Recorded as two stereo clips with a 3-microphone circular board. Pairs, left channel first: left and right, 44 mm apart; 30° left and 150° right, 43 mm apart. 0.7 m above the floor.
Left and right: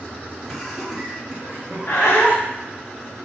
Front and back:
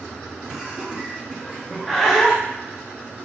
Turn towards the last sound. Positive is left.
turn(degrees=120)